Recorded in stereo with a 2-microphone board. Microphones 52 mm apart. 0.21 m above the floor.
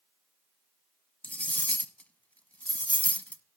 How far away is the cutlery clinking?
About 0.8 m.